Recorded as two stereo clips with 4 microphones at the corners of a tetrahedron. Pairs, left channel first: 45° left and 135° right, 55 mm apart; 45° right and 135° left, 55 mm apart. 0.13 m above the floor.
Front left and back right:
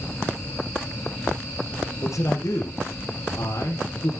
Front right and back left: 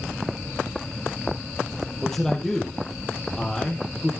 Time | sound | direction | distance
2.0 | a man speaking | 30° left | 3.5 m